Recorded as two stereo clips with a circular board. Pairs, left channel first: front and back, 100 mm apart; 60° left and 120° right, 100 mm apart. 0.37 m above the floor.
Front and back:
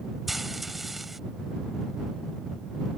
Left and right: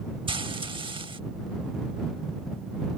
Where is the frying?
90° right.